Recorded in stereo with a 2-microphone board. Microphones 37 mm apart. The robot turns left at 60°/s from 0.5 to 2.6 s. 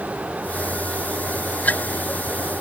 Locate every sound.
Only background noise.